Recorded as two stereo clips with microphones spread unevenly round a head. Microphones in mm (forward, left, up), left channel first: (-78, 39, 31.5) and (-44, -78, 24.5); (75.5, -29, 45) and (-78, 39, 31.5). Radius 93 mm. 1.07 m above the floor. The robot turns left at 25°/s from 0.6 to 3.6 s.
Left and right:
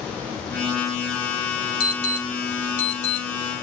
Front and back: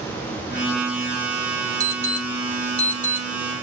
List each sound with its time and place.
1.8 s an alarm: 85° left, 8 m; by 3.3 s 45° left, 8 m